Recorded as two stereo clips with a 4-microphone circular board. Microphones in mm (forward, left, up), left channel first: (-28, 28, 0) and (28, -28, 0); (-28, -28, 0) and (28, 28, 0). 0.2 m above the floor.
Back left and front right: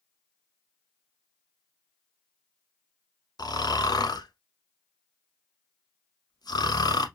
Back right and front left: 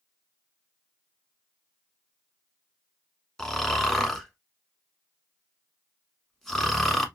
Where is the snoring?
140° left, 0.9 m.